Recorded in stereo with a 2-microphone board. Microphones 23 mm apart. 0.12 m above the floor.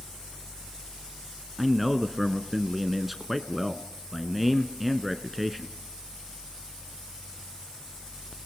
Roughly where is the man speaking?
Centre.